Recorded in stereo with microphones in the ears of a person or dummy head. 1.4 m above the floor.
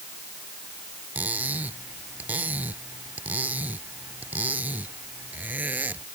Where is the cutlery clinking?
10° right (ahead or behind).